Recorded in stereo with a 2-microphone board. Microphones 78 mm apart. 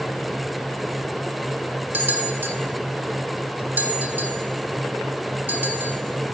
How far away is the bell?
About 1.4 m.